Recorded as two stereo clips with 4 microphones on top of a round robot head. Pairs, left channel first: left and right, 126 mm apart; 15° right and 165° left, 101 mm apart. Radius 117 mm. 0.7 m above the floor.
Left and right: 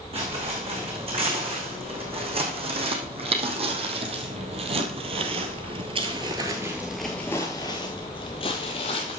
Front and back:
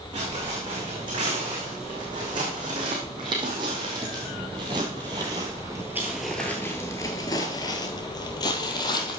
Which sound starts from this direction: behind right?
Footsteps, at 0.1 s.